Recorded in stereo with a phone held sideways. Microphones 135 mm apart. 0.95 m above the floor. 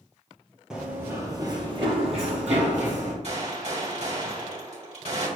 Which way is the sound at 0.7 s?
5° right (ahead or behind).